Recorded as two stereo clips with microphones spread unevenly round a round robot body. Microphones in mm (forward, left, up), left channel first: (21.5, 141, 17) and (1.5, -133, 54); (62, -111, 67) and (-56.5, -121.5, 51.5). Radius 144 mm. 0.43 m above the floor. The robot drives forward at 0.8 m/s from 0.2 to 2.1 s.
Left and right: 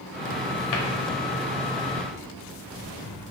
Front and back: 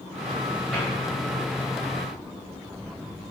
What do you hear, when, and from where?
0.7 s a cupboard door: 95° left, 0.7 m; by 0.9 s 105° left, 0.8 m